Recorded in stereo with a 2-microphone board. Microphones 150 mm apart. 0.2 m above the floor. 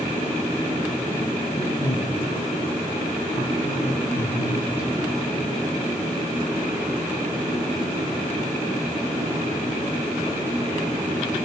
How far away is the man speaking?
About 5.5 m.